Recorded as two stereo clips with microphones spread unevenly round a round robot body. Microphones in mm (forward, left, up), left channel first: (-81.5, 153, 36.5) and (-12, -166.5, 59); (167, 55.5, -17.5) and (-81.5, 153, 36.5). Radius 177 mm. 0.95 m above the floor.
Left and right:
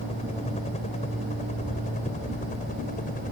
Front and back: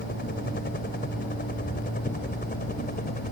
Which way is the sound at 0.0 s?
30° left.